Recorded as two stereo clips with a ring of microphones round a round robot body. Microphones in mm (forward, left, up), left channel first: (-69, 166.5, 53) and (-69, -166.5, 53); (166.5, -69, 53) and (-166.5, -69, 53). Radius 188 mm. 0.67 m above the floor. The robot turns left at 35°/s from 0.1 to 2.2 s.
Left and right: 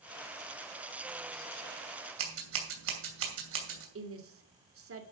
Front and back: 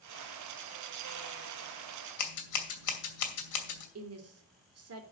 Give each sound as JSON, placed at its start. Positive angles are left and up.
{"t": 2.2, "sound": "scissors", "azimuth_deg": -35, "distance_m": 2.5}
{"t": 4.0, "sound": "a woman speaking", "azimuth_deg": -135, "distance_m": 2.5}